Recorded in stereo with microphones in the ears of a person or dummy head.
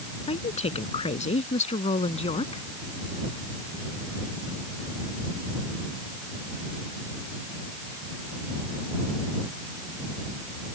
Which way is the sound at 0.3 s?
35° left (ahead or behind).